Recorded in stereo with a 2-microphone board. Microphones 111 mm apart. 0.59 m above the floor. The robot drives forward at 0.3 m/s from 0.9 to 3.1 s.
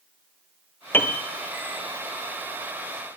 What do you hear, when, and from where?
0.9 s a piano: 20° left (ahead or behind), 1.8 m; by 1.2 s 15° left (ahead or behind), 1.9 m